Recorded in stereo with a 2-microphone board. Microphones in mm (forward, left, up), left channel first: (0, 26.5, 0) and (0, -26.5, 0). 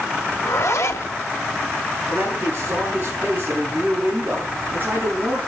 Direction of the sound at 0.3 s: 65° left (ahead or behind).